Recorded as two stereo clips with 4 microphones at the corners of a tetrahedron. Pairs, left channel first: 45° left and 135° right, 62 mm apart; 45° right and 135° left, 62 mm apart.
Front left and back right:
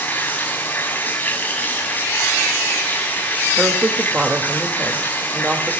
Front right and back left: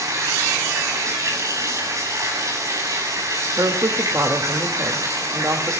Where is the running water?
105° left, 7 m.